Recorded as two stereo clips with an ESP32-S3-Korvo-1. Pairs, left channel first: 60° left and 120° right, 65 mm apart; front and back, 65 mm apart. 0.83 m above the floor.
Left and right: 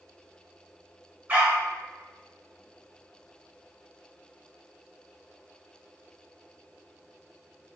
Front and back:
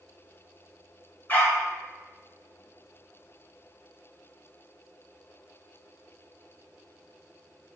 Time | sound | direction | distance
1.3 | a dog barking | 60° right | 1.1 m